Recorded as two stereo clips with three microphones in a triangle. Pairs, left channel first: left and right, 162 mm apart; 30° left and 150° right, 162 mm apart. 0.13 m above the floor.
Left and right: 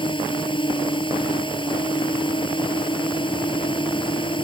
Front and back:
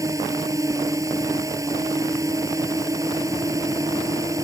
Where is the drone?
145° left.